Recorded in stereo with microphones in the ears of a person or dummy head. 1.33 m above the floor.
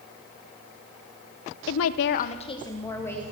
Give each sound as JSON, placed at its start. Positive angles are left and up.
{"t": 1.7, "sound": "a woman speaking", "side_deg": 75, "distance_m": 0.5}